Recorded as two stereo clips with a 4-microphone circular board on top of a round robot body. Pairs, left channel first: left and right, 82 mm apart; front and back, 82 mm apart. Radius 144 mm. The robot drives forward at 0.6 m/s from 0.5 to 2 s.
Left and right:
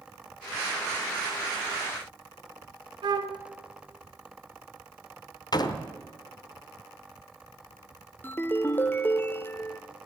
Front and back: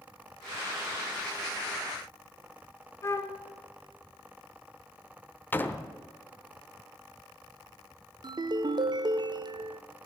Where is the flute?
55° right, 0.7 m.